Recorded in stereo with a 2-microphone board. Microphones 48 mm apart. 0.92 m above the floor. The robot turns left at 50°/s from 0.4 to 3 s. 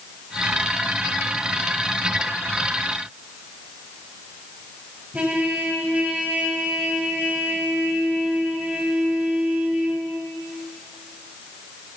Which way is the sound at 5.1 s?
30° right (ahead or behind).